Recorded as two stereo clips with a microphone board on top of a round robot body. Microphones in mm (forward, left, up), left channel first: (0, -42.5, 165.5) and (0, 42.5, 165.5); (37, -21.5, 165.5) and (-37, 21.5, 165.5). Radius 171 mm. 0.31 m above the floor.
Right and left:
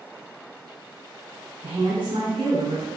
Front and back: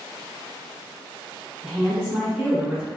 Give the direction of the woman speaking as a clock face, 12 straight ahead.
10 o'clock.